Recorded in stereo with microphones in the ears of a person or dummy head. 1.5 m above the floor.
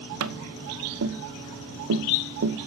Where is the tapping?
75° right (ahead or behind), 0.9 m.